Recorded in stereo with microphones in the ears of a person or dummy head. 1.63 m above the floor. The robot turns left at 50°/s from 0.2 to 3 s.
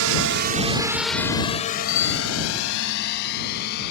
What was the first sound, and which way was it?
A drone, 85° right.